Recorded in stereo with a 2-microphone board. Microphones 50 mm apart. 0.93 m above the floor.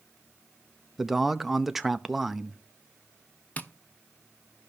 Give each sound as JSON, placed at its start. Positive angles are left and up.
{"t": 1.0, "sound": "a man speaking", "side_deg": -5, "distance_m": 0.6}
{"t": 3.6, "sound": "tapping", "side_deg": 30, "distance_m": 0.8}